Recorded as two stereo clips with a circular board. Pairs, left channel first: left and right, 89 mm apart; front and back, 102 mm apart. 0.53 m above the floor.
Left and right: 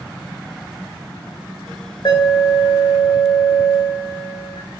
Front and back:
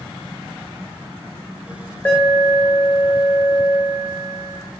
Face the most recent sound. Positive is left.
turn(degrees=70)